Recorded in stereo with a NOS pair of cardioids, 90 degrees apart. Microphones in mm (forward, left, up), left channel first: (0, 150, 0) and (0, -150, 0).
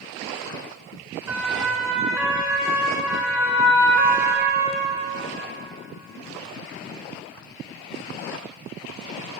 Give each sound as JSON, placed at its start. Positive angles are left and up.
{"t": 1.3, "sound": "a siren", "azimuth_deg": -10, "distance_m": 8.0}